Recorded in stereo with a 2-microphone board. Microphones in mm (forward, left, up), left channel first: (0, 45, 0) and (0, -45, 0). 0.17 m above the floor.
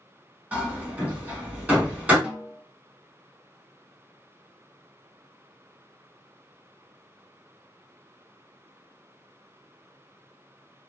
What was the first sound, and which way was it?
Hammering, 15° right (ahead or behind).